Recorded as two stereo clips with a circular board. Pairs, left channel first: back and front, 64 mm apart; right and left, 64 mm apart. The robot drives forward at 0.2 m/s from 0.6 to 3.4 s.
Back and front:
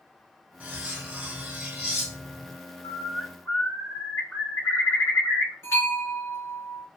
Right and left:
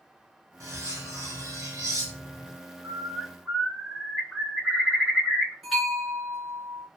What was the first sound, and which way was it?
Cutlery clinking, 65° left.